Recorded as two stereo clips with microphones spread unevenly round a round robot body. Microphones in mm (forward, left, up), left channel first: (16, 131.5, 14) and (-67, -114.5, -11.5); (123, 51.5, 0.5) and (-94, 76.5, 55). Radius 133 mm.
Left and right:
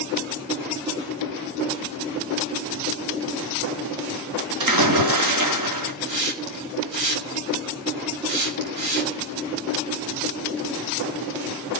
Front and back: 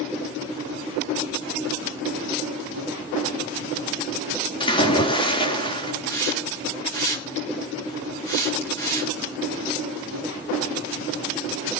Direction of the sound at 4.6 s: 80° right.